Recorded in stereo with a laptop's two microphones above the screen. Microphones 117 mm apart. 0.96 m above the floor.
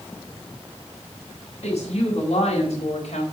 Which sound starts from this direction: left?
A woman speaking, at 1.6 s.